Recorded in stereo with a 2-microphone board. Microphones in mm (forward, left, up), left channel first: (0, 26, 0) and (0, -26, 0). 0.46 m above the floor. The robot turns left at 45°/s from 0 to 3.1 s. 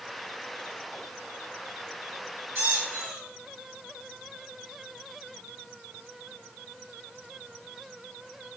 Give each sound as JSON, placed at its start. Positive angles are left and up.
{"t": 2.5, "sound": "a squeak", "side_deg": -55, "distance_m": 1.0}